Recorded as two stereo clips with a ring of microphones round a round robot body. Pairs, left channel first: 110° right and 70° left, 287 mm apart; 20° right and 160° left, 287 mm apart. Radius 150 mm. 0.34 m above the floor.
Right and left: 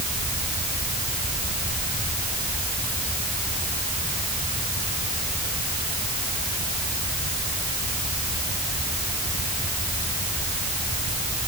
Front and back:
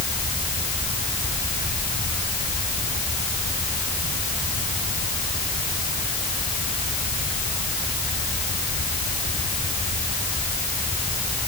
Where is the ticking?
No ticking in this recording.